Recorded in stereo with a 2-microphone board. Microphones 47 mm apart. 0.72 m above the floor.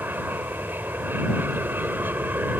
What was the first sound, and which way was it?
An aircraft, 45° right (ahead or behind).